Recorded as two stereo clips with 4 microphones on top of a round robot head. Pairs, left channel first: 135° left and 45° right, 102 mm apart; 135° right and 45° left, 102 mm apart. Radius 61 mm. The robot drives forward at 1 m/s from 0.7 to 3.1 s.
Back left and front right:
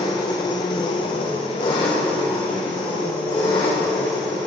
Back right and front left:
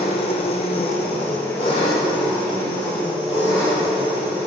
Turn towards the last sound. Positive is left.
turn(degrees=180)